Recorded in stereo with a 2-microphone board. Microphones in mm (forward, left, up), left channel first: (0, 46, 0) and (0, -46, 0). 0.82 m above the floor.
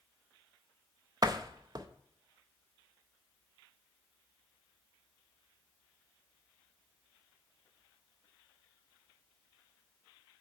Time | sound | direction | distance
1.2 | a door slam | 40° right (ahead or behind) | 0.6 m